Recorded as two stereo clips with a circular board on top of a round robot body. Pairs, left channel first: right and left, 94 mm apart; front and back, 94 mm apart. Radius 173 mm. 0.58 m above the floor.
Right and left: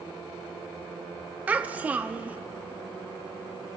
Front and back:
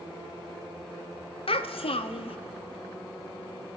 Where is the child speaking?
15° left, 0.6 m.